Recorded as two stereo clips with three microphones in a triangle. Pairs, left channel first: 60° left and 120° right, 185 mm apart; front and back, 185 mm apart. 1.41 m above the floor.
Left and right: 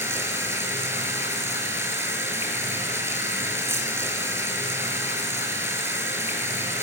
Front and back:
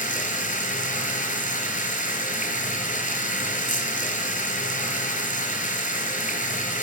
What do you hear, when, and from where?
0.0 s running water: 45° right, 5 m